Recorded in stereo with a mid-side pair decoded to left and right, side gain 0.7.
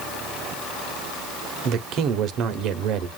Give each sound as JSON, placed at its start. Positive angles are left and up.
{"t": 1.6, "sound": "a man speaking", "azimuth_deg": -55, "distance_m": 0.9}